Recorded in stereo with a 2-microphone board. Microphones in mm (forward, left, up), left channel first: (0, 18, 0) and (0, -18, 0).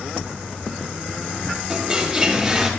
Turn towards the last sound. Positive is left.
turn(degrees=-5)  # may be behind; listen again after turning